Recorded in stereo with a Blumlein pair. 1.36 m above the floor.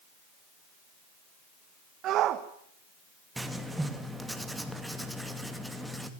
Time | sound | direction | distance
2.0 | a shout | 35° right | 1.4 m
3.4 | writing | 5° right | 2.5 m